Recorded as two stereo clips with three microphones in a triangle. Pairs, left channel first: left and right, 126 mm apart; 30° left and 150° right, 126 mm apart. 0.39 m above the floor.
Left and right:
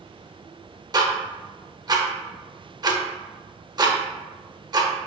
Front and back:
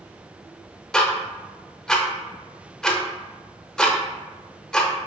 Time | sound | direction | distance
0.9 | ticking | 55° right | 0.6 m